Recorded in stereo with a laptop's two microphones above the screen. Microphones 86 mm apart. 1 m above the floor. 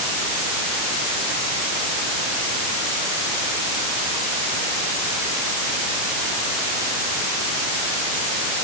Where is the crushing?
I don't hear crushing.